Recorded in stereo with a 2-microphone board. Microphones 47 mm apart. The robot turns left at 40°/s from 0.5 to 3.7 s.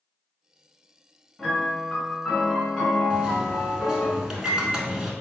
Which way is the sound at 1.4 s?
5° left (ahead or behind).